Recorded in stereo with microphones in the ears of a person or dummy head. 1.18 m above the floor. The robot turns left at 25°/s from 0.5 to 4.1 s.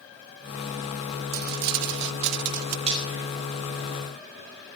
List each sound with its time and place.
1.3 s crumpling: 70° right, 0.8 m; by 2.8 s 105° right, 0.8 m
2.9 s frying: 25° right (ahead or behind), 6 m; by 3.2 s 20° right (ahead or behind), 6 m